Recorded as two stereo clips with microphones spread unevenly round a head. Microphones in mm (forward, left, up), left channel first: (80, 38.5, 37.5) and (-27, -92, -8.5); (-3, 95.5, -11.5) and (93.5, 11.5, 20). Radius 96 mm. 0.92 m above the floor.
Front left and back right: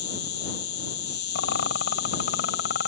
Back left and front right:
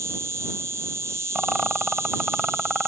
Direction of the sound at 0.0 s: 35° left.